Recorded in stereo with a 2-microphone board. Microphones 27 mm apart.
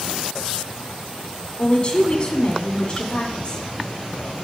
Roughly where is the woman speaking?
Left.